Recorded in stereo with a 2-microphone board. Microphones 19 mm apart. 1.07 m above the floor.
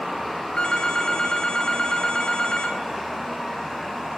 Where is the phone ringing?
50° left (ahead or behind), 1.1 m.